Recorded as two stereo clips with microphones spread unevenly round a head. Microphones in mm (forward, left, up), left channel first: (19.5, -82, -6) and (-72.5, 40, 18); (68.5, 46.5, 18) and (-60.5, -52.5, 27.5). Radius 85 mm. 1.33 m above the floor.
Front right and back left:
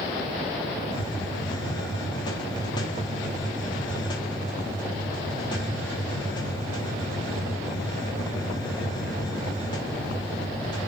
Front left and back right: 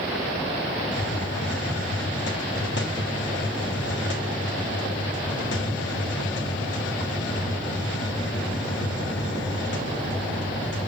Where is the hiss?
15° left, 1.8 m.